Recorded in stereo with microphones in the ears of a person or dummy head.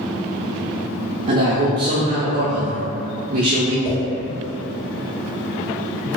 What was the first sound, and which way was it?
A man speaking, 45° right (ahead or behind).